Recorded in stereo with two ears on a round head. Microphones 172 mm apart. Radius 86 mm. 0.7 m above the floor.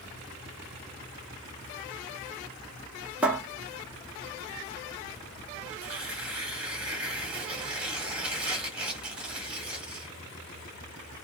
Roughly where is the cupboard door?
Centre.